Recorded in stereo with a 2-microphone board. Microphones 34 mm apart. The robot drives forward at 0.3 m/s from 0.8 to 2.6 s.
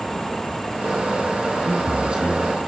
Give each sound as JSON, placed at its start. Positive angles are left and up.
{"t": 1.6, "sound": "a man speaking", "side_deg": -25, "distance_m": 2.5}